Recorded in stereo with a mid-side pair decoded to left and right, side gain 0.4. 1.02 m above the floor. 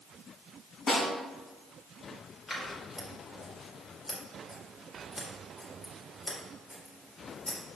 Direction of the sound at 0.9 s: 50° left.